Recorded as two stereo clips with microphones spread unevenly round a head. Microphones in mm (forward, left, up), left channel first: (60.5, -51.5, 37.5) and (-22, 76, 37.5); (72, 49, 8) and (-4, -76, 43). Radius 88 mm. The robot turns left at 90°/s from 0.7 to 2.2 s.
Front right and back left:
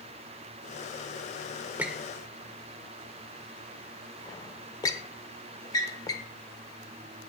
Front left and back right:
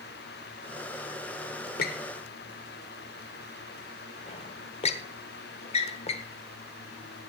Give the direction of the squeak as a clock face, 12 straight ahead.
10 o'clock.